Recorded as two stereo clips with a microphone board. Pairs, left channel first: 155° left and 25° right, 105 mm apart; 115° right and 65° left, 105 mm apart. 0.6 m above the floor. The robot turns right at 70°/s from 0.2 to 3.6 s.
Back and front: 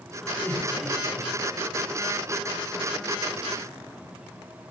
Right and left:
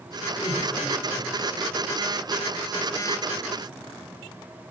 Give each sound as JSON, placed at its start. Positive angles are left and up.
{"t": 0.4, "sound": "laughter", "azimuth_deg": -145, "distance_m": 1.9}